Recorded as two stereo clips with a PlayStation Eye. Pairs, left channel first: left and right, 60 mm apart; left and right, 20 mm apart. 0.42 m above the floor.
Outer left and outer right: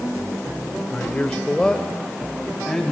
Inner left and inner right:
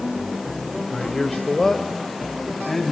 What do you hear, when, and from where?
0.9 s a man speaking: 25° left (ahead or behind), 1.6 m; by 2.9 s centre (ahead or behind), 4 m